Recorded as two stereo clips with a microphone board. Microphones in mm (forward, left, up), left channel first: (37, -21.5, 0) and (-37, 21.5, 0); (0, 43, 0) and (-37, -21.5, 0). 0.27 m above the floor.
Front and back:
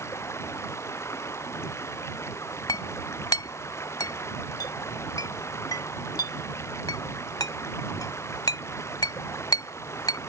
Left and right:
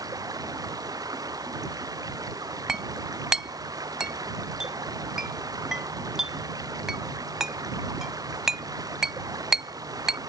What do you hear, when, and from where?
0.0 s running water: 85° right
2.7 s a clink: 40° right